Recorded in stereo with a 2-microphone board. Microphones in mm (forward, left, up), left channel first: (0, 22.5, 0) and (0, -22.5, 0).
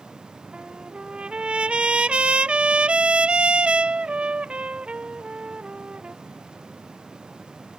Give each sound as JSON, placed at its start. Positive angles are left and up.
{"t": 0.5, "sound": "a trumpet", "side_deg": -25}